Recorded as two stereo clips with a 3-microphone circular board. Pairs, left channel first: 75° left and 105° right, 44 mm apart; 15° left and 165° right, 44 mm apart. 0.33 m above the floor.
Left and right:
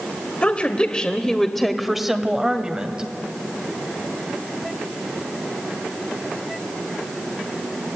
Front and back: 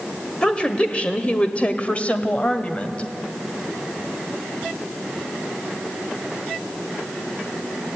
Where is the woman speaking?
60° left, 1.4 m; by 3.0 s 45° right, 2.0 m.